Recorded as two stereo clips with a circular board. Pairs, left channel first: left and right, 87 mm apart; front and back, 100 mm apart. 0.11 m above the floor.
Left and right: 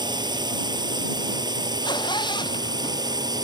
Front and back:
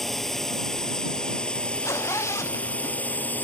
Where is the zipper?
60° left.